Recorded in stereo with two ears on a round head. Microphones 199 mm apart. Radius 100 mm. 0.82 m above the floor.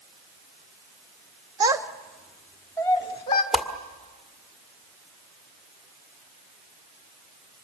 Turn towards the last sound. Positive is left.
turn(degrees=0)  # may be behind; listen again after turning